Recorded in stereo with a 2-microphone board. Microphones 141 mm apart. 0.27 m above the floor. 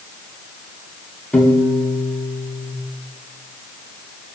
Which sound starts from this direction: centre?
A piano, at 1.3 s.